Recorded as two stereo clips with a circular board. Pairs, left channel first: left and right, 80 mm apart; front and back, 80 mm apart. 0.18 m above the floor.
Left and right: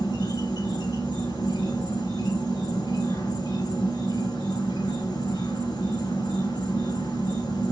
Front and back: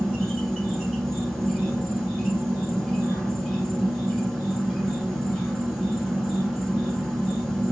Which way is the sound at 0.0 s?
90° left.